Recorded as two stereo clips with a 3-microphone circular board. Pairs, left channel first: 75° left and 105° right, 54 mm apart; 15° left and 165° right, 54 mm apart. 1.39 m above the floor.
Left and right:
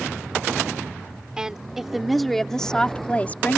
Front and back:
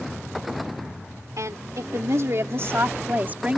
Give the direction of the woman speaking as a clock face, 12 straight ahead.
6 o'clock.